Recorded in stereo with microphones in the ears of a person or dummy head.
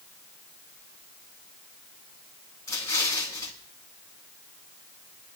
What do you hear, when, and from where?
2.7 s an explosion: 20° left (ahead or behind), 2 m